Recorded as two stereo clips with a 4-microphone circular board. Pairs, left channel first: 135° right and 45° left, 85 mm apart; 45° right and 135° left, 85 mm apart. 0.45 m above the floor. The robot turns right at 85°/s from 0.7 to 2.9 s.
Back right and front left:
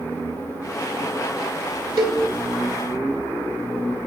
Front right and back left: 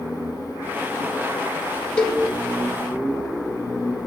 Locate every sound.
2.0 s a cowbell: 25° left, 1.7 m; by 2.2 s 50° left, 1.7 m